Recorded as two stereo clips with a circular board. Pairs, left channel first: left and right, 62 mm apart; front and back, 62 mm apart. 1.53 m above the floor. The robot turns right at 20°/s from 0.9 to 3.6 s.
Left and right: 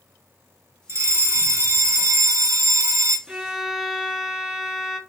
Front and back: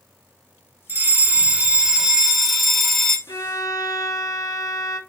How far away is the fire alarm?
About 1.1 m.